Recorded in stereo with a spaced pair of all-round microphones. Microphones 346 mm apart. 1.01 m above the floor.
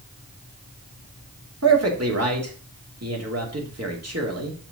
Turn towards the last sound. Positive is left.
turn(degrees=-45)  # may be behind; listen again after turning